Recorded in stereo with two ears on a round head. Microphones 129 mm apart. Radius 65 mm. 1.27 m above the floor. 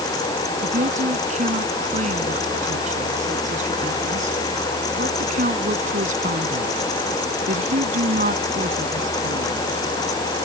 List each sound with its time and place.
0.6 s a woman speaking: 55° right (ahead or behind); by 9.7 s 60° right (ahead or behind)